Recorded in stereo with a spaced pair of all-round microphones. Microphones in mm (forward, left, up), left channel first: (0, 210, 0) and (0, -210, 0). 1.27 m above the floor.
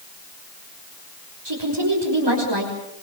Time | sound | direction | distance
1.4 | a woman speaking | 75° right (ahead or behind) | 6 m